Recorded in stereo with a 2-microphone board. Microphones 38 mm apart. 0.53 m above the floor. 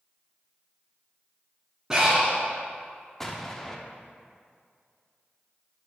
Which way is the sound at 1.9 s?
15° right (ahead or behind).